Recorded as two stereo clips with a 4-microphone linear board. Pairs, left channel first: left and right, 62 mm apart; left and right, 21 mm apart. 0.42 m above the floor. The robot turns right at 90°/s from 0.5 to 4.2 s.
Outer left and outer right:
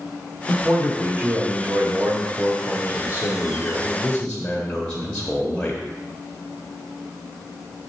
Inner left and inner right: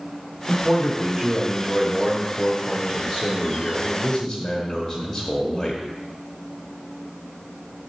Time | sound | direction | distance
0.5 | a man speaking | 175° right | 1.3 m